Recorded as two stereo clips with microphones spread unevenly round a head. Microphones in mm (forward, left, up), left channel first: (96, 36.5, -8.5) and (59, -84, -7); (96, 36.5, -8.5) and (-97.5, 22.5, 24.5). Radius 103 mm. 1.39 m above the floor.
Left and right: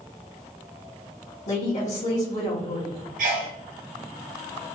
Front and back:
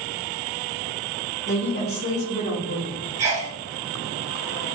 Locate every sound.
1.5 s a woman speaking: 40° left, 1.3 m
3.2 s a sneeze: 100° right, 1.1 m